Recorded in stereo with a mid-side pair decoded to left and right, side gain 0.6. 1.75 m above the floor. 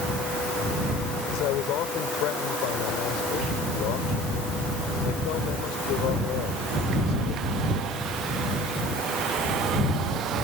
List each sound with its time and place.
1.3 s a man speaking: 70° left